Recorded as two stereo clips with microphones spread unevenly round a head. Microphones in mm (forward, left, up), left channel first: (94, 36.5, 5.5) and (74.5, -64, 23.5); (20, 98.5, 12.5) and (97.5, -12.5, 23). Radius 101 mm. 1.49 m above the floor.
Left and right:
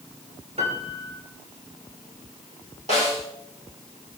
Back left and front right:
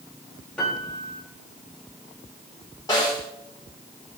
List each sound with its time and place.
0.6 s a piano: 150° right, 2.5 m
2.9 s a snare drum: 160° right, 4 m